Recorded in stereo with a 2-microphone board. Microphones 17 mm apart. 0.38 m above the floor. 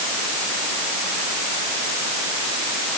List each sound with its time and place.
Only background noise.